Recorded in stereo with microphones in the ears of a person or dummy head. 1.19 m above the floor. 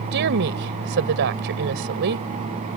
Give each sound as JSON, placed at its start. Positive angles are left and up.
{"t": 0.1, "sound": "a woman speaking", "side_deg": -60}